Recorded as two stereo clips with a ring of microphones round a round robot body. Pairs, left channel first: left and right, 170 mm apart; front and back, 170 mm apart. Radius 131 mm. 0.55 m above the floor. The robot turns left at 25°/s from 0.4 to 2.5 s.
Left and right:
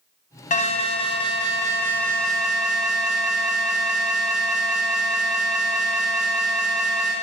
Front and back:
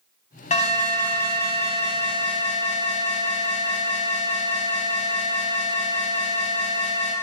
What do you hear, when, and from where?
0.5 s an alarm: 45° left, 2.5 m; by 7.1 s 5° right, 2.5 m